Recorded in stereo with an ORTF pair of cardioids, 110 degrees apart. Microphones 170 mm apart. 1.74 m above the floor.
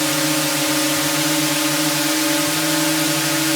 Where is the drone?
Straight ahead.